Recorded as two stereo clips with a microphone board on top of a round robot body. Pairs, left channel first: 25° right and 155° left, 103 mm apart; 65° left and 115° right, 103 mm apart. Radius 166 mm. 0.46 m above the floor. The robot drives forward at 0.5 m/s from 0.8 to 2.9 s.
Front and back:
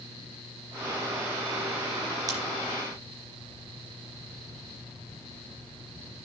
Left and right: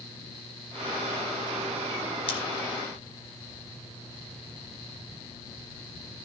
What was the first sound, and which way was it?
Scissors, 100° left.